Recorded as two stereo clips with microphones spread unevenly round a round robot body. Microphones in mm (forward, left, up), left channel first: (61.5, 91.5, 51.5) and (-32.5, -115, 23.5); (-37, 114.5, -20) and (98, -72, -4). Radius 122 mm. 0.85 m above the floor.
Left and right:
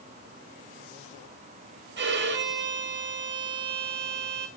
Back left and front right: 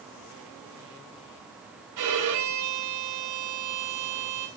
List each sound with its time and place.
2.0 s a violin: 75° right, 4 m